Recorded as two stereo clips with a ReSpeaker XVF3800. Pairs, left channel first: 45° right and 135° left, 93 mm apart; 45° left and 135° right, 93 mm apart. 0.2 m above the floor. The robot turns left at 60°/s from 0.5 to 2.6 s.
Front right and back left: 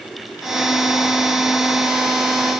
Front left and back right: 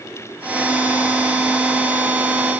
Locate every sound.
Only background noise.